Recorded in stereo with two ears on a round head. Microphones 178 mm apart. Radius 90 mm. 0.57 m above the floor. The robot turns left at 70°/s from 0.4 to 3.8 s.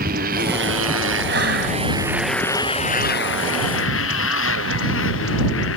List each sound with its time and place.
0.0 s a motorcycle: 50° right; by 5.8 s 75° left
1.3 s breathing: 65° right; by 1.8 s 100° right